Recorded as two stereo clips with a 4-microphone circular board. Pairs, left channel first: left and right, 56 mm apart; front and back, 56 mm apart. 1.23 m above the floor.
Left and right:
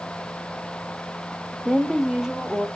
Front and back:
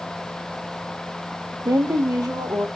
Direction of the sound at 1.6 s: Straight behind.